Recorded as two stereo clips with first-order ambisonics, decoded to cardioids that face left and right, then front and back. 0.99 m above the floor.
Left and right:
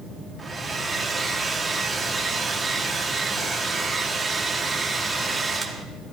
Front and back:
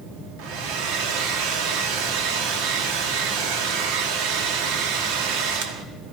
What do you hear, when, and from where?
0.4 s a hair dryer: 170° right, 1.4 m